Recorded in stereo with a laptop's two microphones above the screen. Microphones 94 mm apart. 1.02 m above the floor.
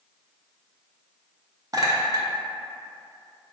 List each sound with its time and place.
1.7 s a clink: 40° right (ahead or behind), 0.5 m